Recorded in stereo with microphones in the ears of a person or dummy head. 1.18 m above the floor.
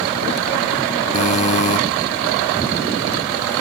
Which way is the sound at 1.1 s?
35° left (ahead or behind).